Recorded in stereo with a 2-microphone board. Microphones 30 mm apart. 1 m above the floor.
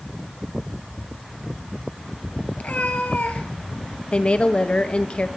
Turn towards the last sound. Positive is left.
turn(degrees=35)  # may be behind; listen again after turning